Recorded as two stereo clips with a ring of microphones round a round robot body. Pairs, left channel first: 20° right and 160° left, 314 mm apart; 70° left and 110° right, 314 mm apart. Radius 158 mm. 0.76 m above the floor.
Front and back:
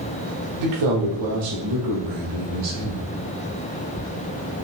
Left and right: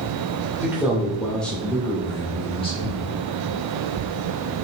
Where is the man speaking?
165° left, 2.5 m; by 3.1 s 135° left, 3 m.